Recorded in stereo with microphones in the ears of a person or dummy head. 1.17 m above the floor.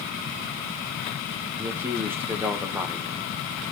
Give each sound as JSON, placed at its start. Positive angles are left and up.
{"t": 1.6, "sound": "a man speaking", "side_deg": -15, "distance_m": 1.0}